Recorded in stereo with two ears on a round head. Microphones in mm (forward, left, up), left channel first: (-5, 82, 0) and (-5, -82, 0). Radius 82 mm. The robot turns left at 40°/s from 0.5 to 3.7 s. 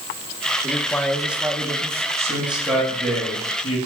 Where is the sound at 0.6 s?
20° left, 1.5 m; by 2.1 s 35° right, 1.5 m.